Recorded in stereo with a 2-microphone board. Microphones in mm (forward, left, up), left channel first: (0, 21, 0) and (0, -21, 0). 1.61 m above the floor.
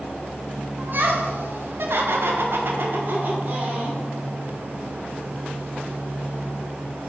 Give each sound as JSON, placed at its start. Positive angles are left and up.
{"t": 0.8, "sound": "laughter", "side_deg": -50, "distance_m": 1.4}